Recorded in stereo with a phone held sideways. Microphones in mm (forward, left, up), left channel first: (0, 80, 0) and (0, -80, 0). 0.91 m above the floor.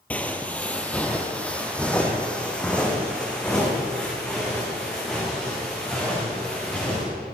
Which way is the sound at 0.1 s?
10° left (ahead or behind).